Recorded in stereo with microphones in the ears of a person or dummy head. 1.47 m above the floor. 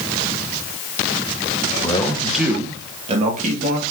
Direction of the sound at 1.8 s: 30° left (ahead or behind).